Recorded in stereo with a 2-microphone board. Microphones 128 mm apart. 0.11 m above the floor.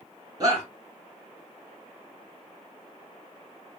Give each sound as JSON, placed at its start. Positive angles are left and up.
{"t": 0.4, "sound": "a shout", "side_deg": -30, "distance_m": 1.4}